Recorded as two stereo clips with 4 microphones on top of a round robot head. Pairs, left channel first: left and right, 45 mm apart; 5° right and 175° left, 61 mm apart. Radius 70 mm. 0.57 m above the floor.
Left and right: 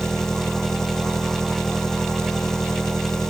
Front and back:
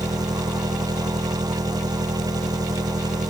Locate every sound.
0.0 s an engine running: 170° left